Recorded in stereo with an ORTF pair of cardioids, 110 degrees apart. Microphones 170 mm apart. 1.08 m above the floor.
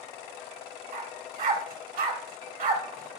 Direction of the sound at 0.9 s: 55° right.